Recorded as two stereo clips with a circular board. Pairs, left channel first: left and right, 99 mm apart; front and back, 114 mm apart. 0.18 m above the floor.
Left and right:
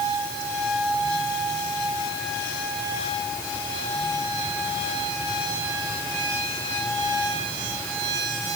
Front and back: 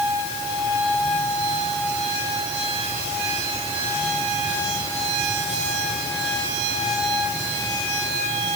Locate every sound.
Only background noise.